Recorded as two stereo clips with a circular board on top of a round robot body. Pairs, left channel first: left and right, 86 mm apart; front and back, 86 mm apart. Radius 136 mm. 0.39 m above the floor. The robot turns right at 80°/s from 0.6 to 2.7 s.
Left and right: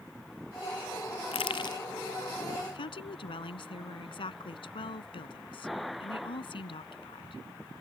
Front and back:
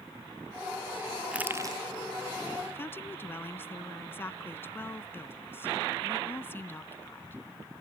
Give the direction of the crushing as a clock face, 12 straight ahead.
9 o'clock.